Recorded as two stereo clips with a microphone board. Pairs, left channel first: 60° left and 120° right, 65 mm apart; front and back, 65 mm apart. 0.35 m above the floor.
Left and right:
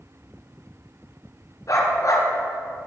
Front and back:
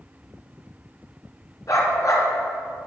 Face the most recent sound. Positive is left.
turn(degrees=30)